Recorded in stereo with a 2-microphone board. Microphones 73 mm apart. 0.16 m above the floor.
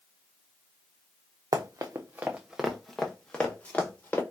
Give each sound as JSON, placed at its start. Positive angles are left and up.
{"t": 1.5, "sound": "running footsteps", "side_deg": -60, "distance_m": 0.7}